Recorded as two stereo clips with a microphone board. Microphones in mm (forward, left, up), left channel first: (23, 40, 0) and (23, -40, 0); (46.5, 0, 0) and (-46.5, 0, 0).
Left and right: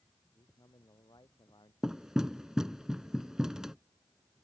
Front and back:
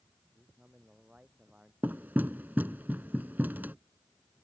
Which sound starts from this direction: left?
A man speaking, at 0.3 s.